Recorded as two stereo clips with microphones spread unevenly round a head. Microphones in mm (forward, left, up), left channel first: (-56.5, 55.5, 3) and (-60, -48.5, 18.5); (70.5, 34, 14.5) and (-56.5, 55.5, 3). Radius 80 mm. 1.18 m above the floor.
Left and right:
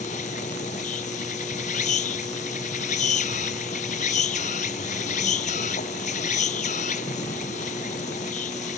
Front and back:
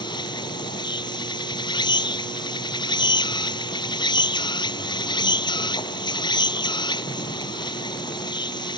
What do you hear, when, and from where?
0.0 s an insect: 45° left